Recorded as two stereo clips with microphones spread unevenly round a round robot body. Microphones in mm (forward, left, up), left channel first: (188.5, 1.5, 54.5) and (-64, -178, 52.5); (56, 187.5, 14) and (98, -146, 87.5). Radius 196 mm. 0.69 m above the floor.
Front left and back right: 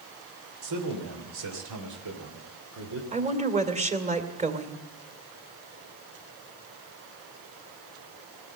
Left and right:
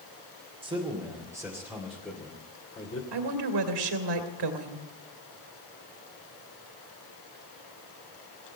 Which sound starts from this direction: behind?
A man speaking, at 0.6 s.